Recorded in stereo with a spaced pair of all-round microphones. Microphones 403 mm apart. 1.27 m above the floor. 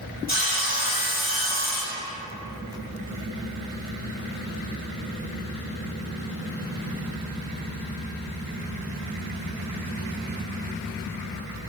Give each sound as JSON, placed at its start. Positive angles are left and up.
{"t": 0.3, "sound": "sawing", "side_deg": 25, "distance_m": 2.5}